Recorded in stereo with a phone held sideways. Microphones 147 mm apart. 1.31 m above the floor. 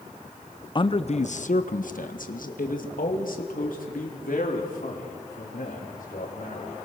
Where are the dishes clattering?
I don't hear dishes clattering.